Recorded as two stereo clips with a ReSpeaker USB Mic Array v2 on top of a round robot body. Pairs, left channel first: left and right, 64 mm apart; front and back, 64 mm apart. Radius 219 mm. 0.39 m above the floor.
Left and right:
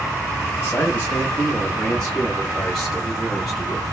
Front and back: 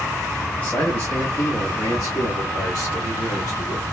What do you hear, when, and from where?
0.6 s a man speaking: 50° left, 1.5 m; by 3.8 s 5° right, 2.5 m